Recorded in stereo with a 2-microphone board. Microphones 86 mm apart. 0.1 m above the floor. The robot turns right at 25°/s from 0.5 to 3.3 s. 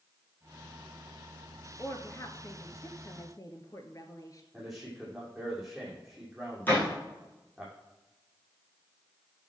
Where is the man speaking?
Centre (ahead or behind), 5.5 m.